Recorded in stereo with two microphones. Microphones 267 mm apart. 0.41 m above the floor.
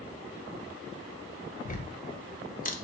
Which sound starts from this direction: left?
Ticking, at 1.6 s.